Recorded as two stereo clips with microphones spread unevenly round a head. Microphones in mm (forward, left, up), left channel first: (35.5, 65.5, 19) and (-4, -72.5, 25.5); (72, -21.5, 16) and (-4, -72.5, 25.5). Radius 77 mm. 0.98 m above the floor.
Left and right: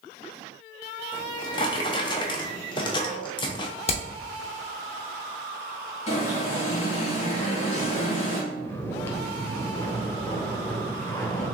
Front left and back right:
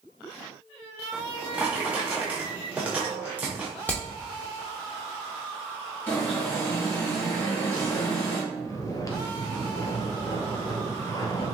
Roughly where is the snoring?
Ahead.